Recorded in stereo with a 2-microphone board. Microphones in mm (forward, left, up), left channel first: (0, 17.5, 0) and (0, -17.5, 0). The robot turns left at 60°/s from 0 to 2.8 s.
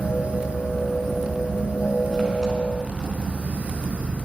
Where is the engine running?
125° left, 7 m; by 4.2 s 45° right, 7 m.